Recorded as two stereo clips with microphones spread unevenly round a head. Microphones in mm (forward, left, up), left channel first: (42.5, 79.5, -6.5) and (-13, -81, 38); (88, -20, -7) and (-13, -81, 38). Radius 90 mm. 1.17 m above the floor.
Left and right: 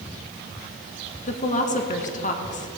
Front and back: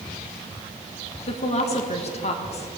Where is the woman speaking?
35° left, 1.6 m.